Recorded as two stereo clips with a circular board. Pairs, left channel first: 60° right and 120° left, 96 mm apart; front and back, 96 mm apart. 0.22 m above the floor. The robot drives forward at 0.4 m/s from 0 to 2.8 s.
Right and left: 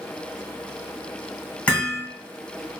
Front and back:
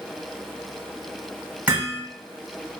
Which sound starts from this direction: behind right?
Hammering, at 1.7 s.